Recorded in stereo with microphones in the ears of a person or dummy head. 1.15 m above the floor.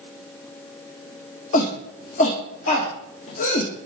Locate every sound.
1.5 s a shout: 45° left (ahead or behind), 1.4 m